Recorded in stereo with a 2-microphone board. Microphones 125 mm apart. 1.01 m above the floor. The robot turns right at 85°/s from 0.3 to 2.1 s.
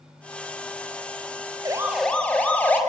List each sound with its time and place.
1.6 s a siren: 35° right (ahead or behind), 4 m; by 2.8 s 10° left (ahead or behind), 4.5 m